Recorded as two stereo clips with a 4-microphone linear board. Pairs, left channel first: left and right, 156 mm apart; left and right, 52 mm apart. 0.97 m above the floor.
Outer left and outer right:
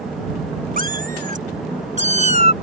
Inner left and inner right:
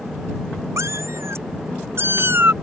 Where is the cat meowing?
65° right (ahead or behind); by 2.5 s 45° right (ahead or behind).